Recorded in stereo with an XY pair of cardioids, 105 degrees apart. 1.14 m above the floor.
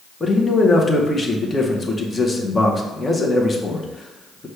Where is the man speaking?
25° left, 0.8 m.